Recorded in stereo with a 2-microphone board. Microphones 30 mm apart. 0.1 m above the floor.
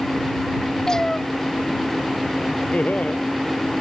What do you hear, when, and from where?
0.9 s a cat meowing: 20° left (ahead or behind)
2.7 s laughter: 50° left (ahead or behind)